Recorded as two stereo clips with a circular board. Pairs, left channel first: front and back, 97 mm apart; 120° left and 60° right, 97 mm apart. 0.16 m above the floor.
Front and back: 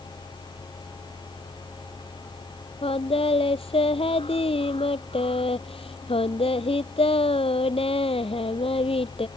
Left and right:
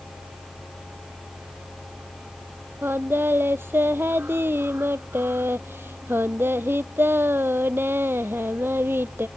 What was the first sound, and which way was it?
Singing, 5° left.